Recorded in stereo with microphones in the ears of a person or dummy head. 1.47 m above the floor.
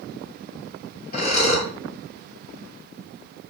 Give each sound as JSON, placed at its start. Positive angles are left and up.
{"t": 1.1, "sound": "breathing", "side_deg": 50, "distance_m": 3.0}